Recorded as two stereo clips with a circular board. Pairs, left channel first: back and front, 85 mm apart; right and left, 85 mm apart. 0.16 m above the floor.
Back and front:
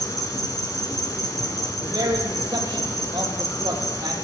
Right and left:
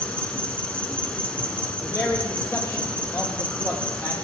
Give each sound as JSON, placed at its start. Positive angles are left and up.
{"t": 0.0, "sound": "an insect", "azimuth_deg": -160, "distance_m": 2.0}
{"t": 1.8, "sound": "a man speaking", "azimuth_deg": -35, "distance_m": 4.5}